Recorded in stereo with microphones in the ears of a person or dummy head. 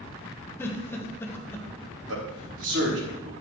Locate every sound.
0.6 s a giggle: 15° left (ahead or behind), 1.4 m
2.1 s a man speaking: 80° right, 3.5 m